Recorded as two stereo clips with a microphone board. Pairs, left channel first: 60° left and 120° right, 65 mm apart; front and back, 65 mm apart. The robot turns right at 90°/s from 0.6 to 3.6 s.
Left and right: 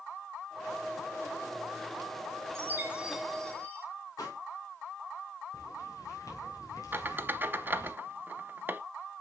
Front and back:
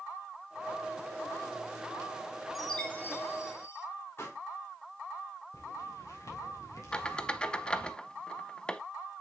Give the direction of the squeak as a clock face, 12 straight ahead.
2 o'clock.